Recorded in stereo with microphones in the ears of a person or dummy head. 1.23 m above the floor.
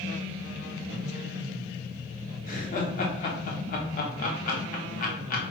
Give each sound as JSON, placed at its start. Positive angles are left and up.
{"t": 2.5, "sound": "laughter", "side_deg": 45, "distance_m": 0.8}